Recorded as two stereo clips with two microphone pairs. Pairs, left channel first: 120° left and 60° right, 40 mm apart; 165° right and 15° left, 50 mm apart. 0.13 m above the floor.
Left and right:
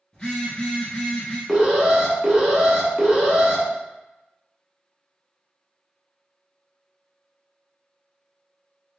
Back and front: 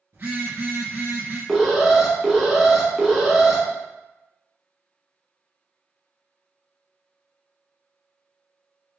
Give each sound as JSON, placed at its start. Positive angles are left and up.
{"t": 0.1, "sound": "a phone buzzing", "azimuth_deg": 55, "distance_m": 1.8}
{"t": 1.5, "sound": "an alarm", "azimuth_deg": -35, "distance_m": 0.8}